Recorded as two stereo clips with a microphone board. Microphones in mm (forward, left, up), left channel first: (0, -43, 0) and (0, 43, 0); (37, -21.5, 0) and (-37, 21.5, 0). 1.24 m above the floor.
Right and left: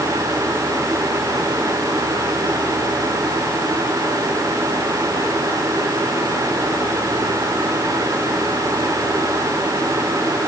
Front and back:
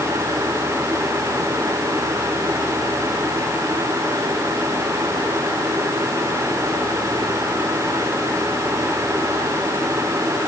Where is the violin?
No violin in this recording.